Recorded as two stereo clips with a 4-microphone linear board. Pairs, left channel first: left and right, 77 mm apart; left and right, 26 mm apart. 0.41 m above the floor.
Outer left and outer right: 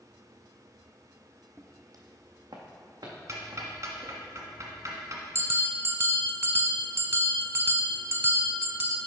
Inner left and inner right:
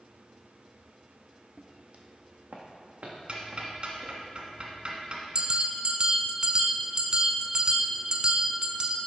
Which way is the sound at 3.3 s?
45° right (ahead or behind).